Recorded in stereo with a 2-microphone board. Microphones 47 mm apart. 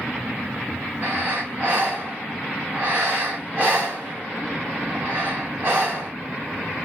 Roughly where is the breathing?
Right.